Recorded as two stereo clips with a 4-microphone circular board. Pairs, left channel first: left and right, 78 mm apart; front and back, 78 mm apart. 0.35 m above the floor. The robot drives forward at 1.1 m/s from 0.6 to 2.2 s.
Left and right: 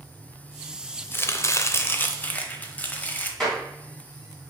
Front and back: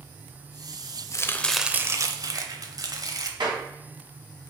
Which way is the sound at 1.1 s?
35° left.